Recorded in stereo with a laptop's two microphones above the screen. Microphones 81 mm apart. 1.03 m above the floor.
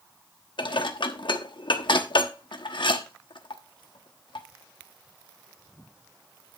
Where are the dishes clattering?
70° left (ahead or behind), 1.2 m.